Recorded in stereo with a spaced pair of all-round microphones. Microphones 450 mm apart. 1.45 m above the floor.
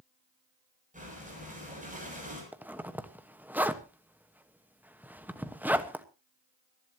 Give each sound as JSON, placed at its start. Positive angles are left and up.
{"t": 0.9, "sound": "breathing", "side_deg": -15, "distance_m": 7.5}
{"t": 2.5, "sound": "a zipper", "side_deg": -5, "distance_m": 1.2}